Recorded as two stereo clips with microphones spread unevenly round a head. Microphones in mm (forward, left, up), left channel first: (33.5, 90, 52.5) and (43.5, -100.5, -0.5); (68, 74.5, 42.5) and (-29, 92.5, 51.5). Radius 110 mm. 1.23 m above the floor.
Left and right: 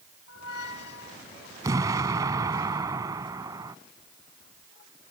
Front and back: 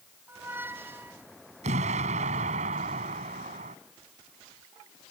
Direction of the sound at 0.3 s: 105° left.